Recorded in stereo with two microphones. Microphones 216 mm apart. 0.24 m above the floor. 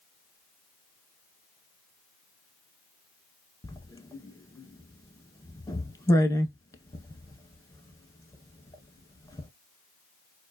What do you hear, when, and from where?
3.6 s writing: 15° left (ahead or behind), 0.5 m